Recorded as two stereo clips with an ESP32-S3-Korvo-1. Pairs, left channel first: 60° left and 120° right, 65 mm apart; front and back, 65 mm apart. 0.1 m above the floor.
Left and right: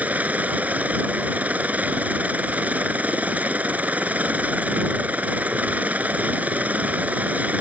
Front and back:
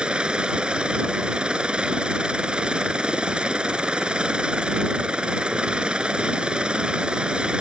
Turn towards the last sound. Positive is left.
turn(degrees=-130)